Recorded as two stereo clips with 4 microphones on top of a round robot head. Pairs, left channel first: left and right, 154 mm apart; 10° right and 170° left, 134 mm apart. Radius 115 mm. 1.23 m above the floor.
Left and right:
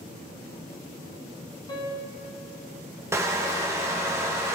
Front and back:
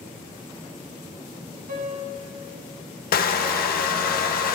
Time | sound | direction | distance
1.7 | a piano | 155° left | 1.9 m
3.1 | crushing | 15° right | 0.8 m